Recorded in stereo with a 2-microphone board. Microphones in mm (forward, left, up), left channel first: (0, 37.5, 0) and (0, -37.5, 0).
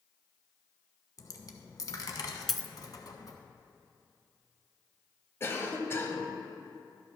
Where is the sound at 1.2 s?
55° left (ahead or behind), 1.1 m.